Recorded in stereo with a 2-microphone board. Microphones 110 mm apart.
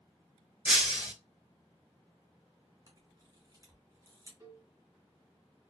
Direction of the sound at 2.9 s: 30° right (ahead or behind).